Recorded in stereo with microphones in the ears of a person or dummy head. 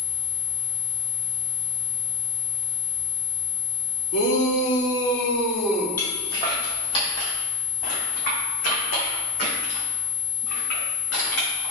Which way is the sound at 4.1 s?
55° left (ahead or behind).